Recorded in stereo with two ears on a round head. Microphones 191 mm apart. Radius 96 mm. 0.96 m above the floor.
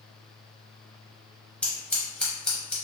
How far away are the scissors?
About 0.8 m.